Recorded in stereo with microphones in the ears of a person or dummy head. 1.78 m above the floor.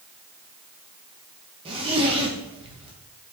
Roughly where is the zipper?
Right.